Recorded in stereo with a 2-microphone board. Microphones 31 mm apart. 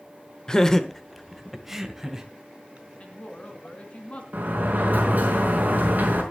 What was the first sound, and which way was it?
Laughter, 25° left (ahead or behind).